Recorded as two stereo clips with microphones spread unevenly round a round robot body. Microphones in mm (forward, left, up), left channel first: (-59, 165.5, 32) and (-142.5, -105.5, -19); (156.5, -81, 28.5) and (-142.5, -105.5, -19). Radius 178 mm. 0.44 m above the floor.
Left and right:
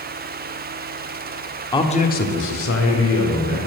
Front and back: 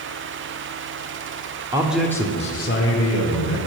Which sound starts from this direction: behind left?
A man speaking, at 1.7 s.